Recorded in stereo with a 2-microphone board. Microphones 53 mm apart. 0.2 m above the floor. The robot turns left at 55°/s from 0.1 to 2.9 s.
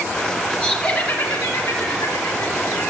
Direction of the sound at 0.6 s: 175° right.